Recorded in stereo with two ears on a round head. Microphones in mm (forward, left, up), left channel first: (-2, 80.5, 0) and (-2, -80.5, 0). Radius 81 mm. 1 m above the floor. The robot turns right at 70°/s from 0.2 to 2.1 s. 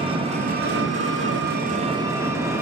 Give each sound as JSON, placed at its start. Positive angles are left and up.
{"t": 0.0, "sound": "an engine running", "azimuth_deg": -150, "distance_m": 1.8}